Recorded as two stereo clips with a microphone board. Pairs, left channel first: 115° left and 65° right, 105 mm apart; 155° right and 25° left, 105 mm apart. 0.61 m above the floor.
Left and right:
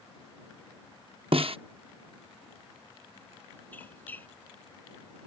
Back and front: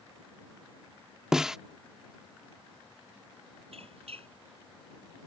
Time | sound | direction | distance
1.3 | a snare drum | 60° right | ?
3.7 | a squeak | 40° left | ?